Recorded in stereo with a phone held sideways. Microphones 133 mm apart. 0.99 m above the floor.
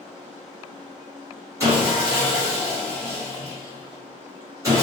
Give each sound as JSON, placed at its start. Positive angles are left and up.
{"t": 1.6, "sound": "sawing", "side_deg": -25, "distance_m": 1.2}